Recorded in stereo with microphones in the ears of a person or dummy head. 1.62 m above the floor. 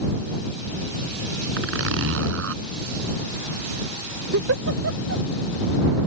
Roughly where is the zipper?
Right.